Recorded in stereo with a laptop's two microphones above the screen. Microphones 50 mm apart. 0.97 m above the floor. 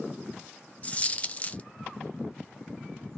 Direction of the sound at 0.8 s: 30° left (ahead or behind).